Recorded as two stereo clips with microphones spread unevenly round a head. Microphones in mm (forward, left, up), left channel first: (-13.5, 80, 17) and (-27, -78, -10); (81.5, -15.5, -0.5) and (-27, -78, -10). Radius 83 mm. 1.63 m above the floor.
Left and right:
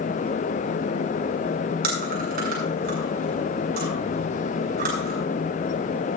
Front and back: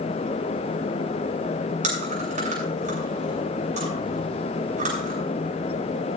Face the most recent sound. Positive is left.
turn(degrees=-125)